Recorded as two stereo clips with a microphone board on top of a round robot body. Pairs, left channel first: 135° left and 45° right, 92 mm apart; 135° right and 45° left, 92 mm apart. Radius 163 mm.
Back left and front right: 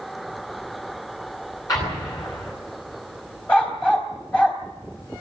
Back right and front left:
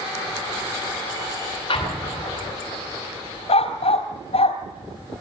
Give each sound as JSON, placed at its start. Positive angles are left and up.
{"t": 1.7, "sound": "an explosion", "azimuth_deg": -170, "distance_m": 10.0}
{"t": 3.5, "sound": "a dog barking", "azimuth_deg": -150, "distance_m": 3.0}